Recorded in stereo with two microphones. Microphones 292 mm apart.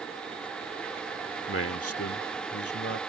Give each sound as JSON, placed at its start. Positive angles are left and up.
{"t": 1.5, "sound": "a man speaking", "side_deg": 45}